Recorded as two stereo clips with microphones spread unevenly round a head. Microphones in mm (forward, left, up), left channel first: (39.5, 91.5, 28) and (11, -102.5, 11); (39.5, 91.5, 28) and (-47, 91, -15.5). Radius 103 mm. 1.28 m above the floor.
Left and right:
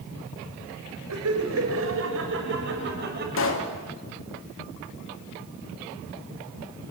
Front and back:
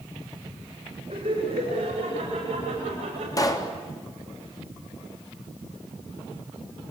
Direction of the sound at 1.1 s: 120° right.